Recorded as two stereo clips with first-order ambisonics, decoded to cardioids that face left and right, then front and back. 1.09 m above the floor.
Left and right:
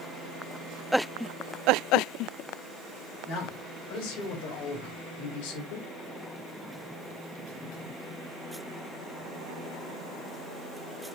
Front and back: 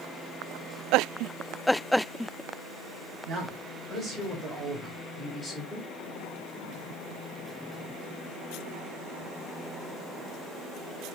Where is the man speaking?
110° left, 3.5 m; by 5.9 s 95° left, 1.8 m.